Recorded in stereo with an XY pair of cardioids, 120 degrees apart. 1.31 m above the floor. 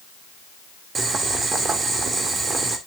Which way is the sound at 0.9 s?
35° right.